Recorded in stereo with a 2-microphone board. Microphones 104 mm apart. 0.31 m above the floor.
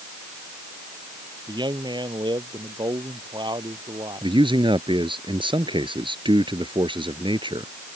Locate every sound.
1.5 s a man speaking: 45° right (ahead or behind)
4.2 s a man speaking: 50° right (ahead or behind)